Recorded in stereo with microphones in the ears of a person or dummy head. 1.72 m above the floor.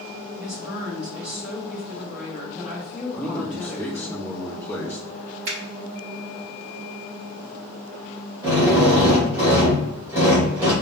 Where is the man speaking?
15° left (ahead or behind), 1.2 m.